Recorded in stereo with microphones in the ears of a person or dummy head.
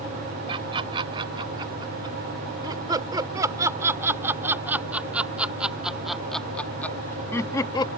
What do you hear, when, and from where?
0.5 s laughter: 20° right (ahead or behind); by 7.9 s 30° left (ahead or behind)